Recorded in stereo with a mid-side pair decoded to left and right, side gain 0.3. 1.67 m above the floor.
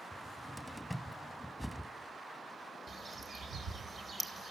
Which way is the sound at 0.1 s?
5° right.